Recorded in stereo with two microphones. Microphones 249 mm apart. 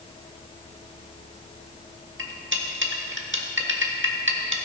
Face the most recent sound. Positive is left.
turn(degrees=-50)  # may be behind; listen again after turning